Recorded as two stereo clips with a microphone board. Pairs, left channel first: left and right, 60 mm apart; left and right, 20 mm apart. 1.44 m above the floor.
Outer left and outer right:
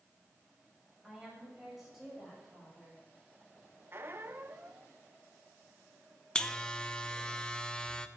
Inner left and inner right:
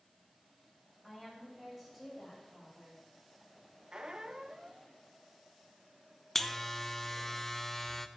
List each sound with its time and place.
1.0 s a woman speaking: 5° right (ahead or behind), 7 m
3.9 s a squeak: 40° right (ahead or behind), 0.7 m
6.3 s a buzzer: 15° left (ahead or behind), 0.7 m